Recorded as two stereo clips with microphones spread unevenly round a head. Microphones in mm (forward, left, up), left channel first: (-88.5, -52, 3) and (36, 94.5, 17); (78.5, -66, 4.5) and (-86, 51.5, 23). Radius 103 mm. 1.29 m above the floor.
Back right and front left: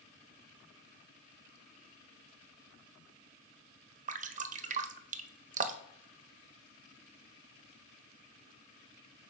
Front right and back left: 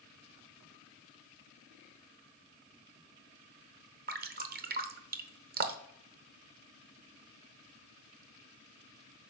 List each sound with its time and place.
4.1 s dripping: 100° left, 0.7 m